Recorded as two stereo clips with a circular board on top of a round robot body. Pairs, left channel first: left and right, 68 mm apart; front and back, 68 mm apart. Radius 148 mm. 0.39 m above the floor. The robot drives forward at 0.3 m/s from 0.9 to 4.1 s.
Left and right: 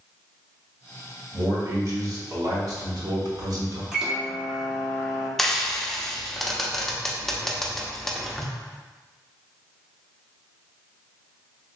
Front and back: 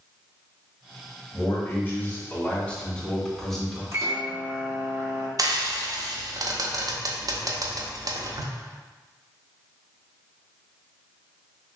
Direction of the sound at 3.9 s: 165° right.